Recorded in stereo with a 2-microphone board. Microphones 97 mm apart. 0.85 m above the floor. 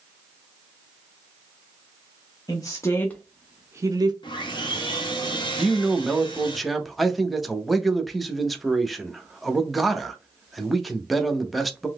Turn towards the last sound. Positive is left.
turn(degrees=0)  # may be behind; listen again after turning